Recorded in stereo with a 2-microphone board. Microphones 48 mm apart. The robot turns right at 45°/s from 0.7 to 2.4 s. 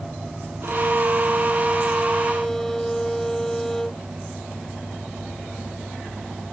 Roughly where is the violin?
Right.